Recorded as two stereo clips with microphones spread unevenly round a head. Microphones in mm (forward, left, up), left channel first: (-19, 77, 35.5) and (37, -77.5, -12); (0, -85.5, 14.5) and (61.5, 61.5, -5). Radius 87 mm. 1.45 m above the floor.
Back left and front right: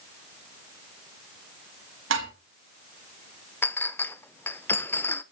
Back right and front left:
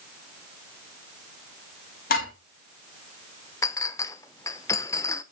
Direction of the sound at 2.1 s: 80° right.